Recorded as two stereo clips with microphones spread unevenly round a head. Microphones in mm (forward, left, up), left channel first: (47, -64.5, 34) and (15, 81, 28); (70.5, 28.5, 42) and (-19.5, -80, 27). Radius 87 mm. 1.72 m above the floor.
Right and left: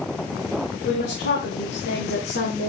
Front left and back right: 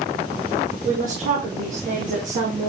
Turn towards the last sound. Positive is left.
turn(degrees=-100)